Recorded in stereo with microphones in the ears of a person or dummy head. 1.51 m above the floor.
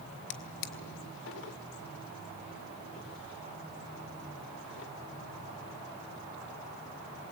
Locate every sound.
0.3 s a drawer: 70° left (ahead or behind), 2 m